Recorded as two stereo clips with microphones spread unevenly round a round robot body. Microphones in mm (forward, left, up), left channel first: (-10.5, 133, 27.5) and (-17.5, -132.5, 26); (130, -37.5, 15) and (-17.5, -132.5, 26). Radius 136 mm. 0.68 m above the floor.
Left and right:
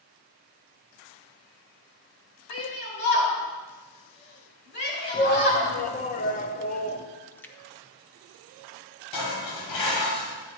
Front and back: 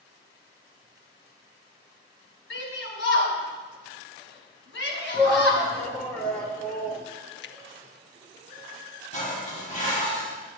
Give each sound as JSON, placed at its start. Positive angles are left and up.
{"t": 2.5, "sound": "a shout", "azimuth_deg": 35, "distance_m": 3.5}
{"t": 5.1, "sound": "a shout", "azimuth_deg": 110, "distance_m": 0.9}
{"t": 7.3, "sound": "a splash", "azimuth_deg": 5, "distance_m": 0.6}
{"t": 9.1, "sound": "dishes clattering", "azimuth_deg": 100, "distance_m": 2.5}